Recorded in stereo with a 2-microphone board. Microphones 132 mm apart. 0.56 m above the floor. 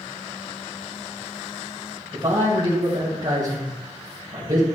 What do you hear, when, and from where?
2.1 s a man speaking: 35° right (ahead or behind), 3.5 m